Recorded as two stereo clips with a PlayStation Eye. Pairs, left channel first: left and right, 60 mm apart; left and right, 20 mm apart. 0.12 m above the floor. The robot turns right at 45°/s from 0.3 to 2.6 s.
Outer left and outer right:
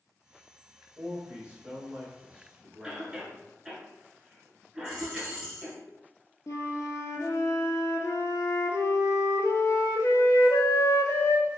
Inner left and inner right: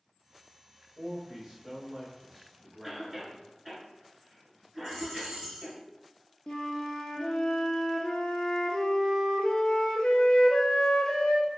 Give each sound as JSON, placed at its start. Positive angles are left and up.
{"t": 1.0, "sound": "a man speaking", "side_deg": -20, "distance_m": 1.4}
{"t": 2.8, "sound": "a cough", "side_deg": -15, "distance_m": 1.1}
{"t": 4.8, "sound": "a dropped coin", "side_deg": -10, "distance_m": 1.5}
{"t": 6.5, "sound": "a flute", "side_deg": 65, "distance_m": 0.5}